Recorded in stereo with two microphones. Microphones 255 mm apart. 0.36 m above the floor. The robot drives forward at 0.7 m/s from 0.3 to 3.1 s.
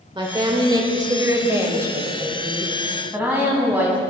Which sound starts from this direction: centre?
A woman speaking, at 0.1 s.